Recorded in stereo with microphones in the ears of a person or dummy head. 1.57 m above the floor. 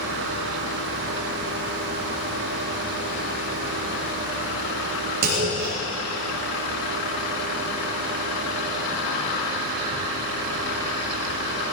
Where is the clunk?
70° right (ahead or behind), 6.5 m.